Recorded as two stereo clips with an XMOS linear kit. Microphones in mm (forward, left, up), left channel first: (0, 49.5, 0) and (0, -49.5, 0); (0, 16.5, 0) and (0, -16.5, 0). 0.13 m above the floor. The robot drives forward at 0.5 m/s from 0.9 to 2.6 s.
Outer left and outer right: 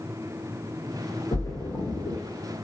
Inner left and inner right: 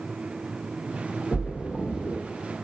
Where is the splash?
40° left (ahead or behind), 0.7 m; by 2.2 s 30° left (ahead or behind), 1.0 m.